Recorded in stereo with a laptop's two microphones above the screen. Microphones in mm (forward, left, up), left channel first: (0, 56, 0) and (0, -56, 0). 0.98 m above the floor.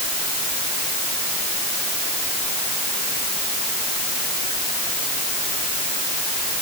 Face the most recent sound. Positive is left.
No sound to turn to.